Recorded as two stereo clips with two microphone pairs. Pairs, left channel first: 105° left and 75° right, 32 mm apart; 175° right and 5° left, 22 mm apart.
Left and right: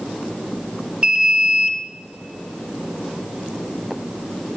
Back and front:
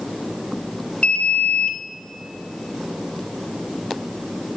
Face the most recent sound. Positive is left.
turn(degrees=-135)